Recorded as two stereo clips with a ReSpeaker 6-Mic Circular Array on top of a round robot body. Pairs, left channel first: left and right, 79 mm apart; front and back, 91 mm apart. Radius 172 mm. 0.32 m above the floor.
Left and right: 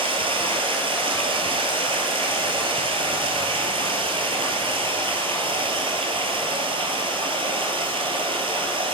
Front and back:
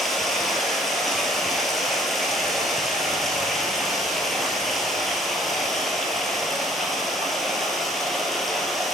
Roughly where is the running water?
Right.